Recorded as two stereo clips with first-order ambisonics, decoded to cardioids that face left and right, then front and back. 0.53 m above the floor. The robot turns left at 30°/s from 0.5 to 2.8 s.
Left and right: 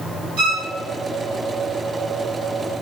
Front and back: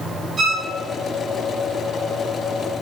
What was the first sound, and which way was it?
A violin, 100° right.